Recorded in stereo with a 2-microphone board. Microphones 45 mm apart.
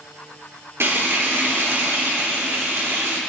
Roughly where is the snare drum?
I don't hear a snare drum.